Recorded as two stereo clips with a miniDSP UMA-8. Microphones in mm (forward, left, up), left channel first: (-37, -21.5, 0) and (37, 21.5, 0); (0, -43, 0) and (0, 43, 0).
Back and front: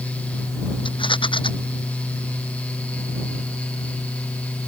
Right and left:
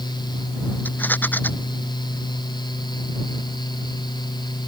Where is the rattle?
160° right.